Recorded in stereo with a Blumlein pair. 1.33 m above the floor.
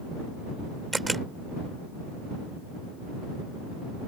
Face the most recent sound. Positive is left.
turn(degrees=-5)